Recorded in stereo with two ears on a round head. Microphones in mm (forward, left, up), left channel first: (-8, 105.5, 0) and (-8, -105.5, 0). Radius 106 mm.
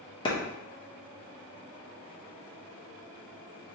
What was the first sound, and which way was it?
A clap, 20° left (ahead or behind).